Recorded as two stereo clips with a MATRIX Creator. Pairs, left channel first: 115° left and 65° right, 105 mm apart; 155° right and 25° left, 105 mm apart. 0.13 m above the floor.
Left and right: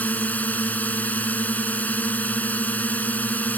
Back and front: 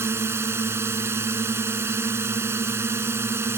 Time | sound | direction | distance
0.0 | a drone | 55° left | ?